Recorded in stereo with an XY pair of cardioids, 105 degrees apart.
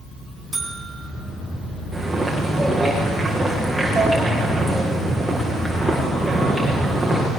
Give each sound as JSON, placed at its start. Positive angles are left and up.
{"t": 0.5, "sound": "a buzzer", "azimuth_deg": -25, "distance_m": 4.0}
{"t": 1.9, "sound": "footsteps", "azimuth_deg": -10, "distance_m": 8.0}